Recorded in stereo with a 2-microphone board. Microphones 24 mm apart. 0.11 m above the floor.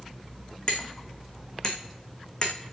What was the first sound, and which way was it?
Hammering, 30° left (ahead or behind).